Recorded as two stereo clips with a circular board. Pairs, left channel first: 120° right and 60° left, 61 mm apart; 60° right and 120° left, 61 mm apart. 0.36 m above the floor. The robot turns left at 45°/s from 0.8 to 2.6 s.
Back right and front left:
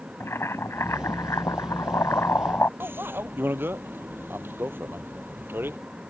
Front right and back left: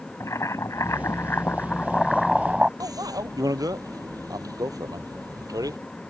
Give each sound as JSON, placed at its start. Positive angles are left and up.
{"t": 0.2, "sound": "boiling", "azimuth_deg": -85}
{"t": 2.8, "sound": "a bicycle bell", "azimuth_deg": 115}